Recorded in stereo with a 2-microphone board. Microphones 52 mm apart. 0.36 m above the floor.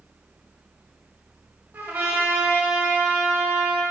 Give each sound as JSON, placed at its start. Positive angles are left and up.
{"t": 1.7, "sound": "a trumpet", "side_deg": -35, "distance_m": 1.3}